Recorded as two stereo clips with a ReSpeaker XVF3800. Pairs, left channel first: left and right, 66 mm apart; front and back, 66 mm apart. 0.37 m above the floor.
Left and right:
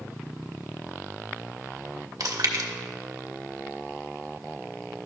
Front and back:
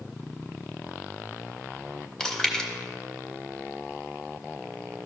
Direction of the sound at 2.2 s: 80° right.